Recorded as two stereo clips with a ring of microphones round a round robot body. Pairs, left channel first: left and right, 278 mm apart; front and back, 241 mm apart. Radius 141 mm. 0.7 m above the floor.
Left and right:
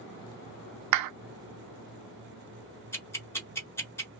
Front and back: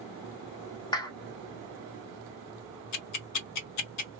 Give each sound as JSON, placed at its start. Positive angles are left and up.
{"t": 0.9, "sound": "a clap", "azimuth_deg": -75, "distance_m": 0.5}
{"t": 2.9, "sound": "ticking", "azimuth_deg": 10, "distance_m": 1.0}